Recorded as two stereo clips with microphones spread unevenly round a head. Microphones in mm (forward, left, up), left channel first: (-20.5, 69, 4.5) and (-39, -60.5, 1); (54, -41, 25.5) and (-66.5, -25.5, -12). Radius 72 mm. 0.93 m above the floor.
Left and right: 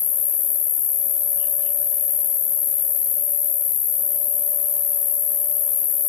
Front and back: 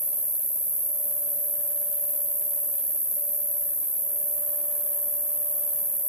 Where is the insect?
110° left, 0.9 m.